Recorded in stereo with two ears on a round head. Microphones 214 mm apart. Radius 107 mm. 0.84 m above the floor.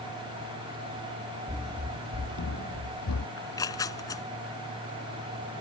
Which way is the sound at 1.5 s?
20° right (ahead or behind).